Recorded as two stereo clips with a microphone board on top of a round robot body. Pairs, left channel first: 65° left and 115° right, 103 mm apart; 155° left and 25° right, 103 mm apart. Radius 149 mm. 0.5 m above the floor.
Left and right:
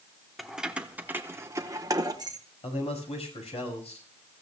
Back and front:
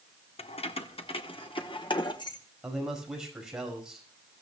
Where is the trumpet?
No trumpet in this recording.